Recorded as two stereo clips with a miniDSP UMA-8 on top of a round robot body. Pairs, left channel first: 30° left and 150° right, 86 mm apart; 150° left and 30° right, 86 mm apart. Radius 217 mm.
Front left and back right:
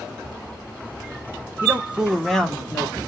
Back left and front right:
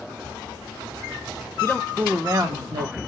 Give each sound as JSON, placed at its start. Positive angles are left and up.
{"t": 1.6, "sound": "a man speaking", "azimuth_deg": -170, "distance_m": 0.9}